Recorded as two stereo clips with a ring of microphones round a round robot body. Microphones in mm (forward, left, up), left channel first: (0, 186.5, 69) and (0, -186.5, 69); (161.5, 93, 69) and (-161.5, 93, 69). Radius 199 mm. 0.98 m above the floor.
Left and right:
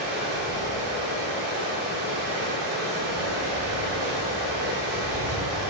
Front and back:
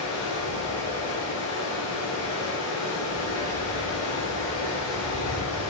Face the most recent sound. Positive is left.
turn(degrees=-60)